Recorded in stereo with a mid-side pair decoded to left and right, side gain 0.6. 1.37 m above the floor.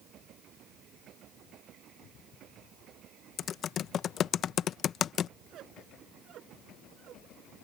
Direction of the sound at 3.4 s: 50° left.